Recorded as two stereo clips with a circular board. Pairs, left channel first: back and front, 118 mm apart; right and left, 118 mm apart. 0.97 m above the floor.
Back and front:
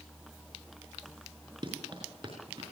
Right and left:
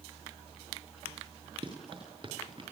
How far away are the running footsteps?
About 6 m.